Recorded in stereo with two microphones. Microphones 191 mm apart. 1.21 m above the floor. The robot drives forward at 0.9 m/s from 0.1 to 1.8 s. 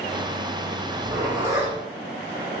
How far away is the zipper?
About 1.2 m.